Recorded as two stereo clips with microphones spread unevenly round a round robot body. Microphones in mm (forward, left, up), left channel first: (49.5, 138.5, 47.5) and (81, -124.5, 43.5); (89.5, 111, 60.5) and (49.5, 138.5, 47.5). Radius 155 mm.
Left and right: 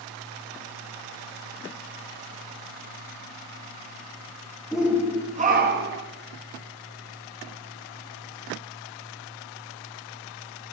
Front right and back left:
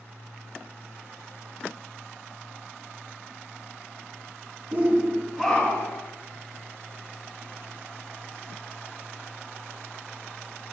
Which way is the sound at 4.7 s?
170° right.